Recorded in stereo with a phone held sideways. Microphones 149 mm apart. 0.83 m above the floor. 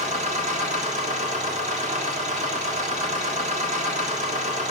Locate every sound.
0.0 s a machine running: 50° right (ahead or behind), 1.7 m